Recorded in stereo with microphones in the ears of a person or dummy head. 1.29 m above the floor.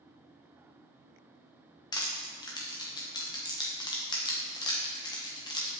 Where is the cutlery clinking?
I don't hear cutlery clinking.